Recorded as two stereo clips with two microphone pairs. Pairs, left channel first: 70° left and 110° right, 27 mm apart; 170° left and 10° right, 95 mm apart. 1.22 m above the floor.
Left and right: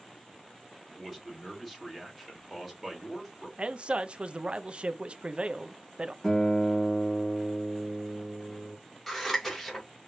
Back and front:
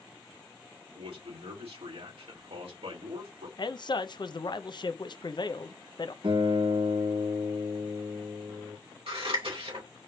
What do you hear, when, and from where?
0.9 s a man speaking: 20° right, 3.5 m
3.6 s a man speaking: 150° right, 0.6 m
6.2 s a guitar: 10° right, 3.5 m
9.1 s scissors: 10° right, 3 m